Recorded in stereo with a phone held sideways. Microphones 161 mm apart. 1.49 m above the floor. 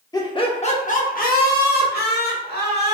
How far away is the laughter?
About 0.7 m.